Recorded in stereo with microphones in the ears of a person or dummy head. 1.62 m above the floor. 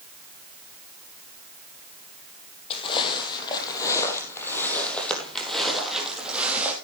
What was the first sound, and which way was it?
Footsteps, 35° left (ahead or behind).